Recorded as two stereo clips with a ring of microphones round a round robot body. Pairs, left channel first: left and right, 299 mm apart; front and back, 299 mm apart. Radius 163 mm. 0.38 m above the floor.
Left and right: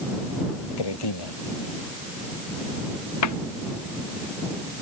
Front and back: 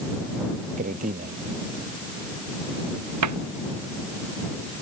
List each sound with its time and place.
0.8 s a man speaking: 110° left
3.2 s a cupboard door: 135° left